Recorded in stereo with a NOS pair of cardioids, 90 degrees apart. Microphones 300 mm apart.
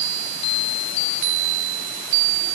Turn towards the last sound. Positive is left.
No sound to turn to.